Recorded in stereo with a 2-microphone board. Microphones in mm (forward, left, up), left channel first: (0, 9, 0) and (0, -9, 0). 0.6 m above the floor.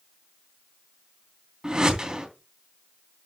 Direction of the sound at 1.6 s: 40° right (ahead or behind).